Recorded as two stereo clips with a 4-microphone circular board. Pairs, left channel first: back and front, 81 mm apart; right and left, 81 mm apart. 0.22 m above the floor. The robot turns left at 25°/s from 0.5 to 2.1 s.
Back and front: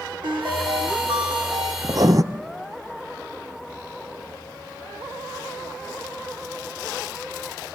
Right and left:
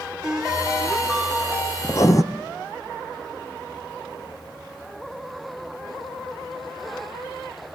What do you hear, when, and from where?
0.2 s a ringtone: 10° left, 5.5 m; by 1.7 s 20° right, 5.5 m
1.8 s writing: 35° right, 0.9 m; by 2.2 s 45° right, 0.9 m